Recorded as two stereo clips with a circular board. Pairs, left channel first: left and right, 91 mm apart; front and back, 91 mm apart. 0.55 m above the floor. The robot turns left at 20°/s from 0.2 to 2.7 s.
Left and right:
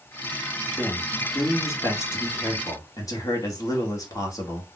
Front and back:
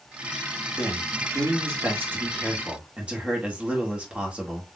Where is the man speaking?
150° left, 1.6 m; by 4.7 s 110° left, 1.6 m.